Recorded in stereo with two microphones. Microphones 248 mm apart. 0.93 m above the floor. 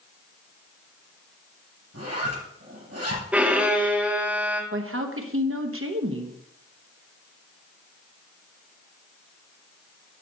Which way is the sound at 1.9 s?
80° right.